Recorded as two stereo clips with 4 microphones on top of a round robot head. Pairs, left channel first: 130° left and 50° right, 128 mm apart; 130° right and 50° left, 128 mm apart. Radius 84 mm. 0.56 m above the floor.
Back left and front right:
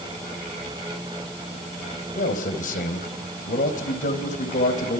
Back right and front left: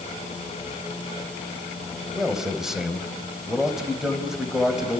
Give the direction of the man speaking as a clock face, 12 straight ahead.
7 o'clock.